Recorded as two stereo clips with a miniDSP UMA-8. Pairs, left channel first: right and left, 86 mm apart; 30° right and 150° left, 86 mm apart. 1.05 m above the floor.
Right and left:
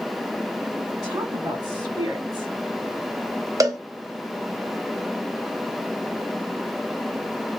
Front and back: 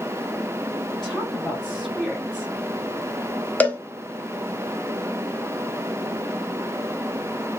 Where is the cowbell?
40° left, 0.6 m.